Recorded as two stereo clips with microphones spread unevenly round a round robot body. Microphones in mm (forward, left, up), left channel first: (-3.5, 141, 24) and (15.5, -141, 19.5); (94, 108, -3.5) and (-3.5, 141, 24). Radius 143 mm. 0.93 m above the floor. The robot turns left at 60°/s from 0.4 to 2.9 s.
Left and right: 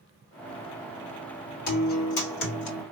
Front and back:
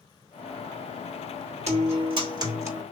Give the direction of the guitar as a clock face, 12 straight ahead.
7 o'clock.